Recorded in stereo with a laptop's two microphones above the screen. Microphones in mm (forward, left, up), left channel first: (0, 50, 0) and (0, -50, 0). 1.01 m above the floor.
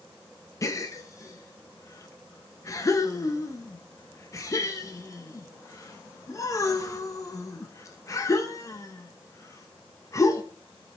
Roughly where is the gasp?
Left.